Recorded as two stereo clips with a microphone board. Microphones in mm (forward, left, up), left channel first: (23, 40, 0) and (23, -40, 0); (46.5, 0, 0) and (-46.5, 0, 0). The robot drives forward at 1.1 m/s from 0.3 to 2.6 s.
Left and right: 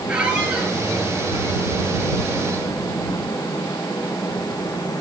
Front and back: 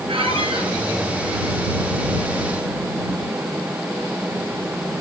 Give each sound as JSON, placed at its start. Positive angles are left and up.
{"t": 0.1, "sound": "a squeak", "azimuth_deg": -165, "distance_m": 4.5}